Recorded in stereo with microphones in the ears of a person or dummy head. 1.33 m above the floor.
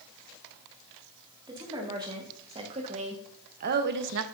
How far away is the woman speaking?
About 2 m.